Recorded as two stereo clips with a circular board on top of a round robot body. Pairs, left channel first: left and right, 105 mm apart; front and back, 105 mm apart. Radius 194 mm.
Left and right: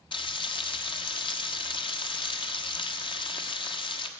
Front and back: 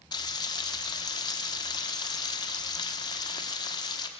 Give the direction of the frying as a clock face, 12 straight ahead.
10 o'clock.